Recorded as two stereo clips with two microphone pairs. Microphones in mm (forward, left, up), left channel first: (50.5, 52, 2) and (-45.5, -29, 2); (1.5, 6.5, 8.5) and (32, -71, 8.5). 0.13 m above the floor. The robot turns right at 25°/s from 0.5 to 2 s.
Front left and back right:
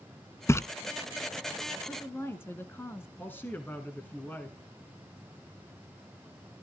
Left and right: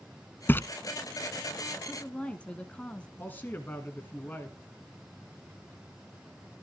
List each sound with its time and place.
0.5 s a splash: 75° left, 0.6 m
1.9 s a woman speaking: 55° left, 1.2 m; by 3.1 s 60° left, 1.2 m
3.2 s a man speaking: 85° left, 1.5 m